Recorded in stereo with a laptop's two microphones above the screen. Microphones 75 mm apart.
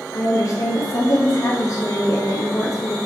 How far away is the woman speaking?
About 0.9 m.